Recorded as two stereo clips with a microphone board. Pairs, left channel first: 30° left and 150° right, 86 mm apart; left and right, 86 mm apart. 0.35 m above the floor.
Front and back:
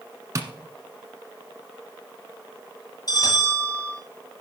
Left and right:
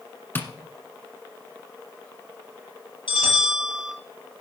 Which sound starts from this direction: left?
A bell, at 3.1 s.